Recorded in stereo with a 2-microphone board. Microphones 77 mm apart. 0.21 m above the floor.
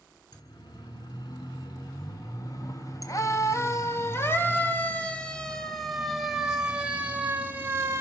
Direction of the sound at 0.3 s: 60° left (ahead or behind).